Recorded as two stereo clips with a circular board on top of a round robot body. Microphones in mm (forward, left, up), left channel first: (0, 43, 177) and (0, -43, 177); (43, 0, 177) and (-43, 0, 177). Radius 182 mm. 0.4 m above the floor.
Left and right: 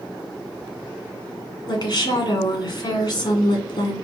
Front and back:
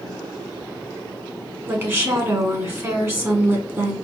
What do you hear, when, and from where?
1.7 s a woman speaking: 120° left, 1.9 m